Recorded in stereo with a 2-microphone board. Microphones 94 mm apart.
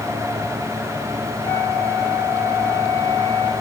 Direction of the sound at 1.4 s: 45° left (ahead or behind).